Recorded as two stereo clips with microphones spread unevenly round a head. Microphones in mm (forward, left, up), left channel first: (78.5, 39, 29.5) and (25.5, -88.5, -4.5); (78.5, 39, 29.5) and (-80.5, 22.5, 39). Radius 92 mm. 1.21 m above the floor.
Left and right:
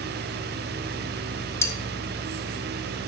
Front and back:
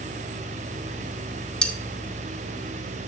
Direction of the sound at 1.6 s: 90° left.